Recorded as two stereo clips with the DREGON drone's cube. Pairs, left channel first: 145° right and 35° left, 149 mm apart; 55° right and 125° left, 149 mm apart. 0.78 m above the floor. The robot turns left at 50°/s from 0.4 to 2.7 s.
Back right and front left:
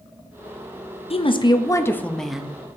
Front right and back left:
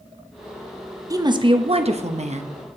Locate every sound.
1.1 s a woman speaking: 175° right, 0.6 m; by 2.5 s 115° left, 0.6 m